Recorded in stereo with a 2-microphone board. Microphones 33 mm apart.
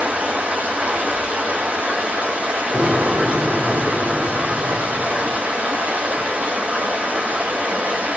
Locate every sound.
0.0 s running water: 60° right (ahead or behind), 1.4 m
2.7 s an explosion: 40° right (ahead or behind), 1.3 m